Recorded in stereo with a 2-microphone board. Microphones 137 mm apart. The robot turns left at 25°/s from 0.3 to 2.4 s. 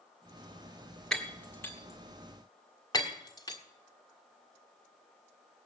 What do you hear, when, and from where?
1.1 s breaking glass: 5° left (ahead or behind), 1.5 m; by 3.6 s 30° left (ahead or behind), 1.5 m